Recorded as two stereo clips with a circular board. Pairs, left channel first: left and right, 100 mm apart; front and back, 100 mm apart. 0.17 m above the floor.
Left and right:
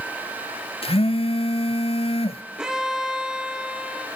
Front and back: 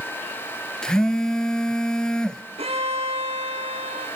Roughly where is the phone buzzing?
Left.